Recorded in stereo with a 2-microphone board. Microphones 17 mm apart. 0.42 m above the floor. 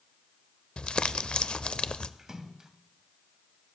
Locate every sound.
0.8 s crumpling: 65° left (ahead or behind), 0.5 m
2.2 s a splash: 30° right (ahead or behind), 1.1 m